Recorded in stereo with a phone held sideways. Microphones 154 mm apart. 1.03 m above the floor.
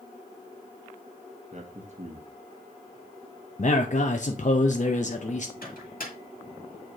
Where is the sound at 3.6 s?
50° left (ahead or behind), 0.5 m.